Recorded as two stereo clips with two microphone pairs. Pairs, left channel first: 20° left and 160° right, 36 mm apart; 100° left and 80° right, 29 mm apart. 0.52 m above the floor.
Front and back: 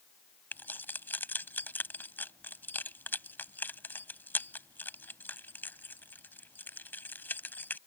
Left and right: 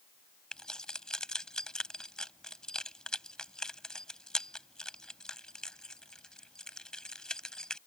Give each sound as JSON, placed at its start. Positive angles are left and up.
{"t": 0.5, "sound": "keys jangling", "azimuth_deg": 35}